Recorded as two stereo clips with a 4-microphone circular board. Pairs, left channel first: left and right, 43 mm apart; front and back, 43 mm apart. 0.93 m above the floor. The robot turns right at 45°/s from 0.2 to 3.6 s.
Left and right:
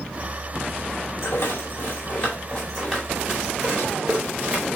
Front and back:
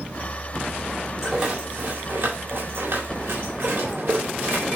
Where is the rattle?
105° left, 4 m; by 4.7 s 150° right, 4 m.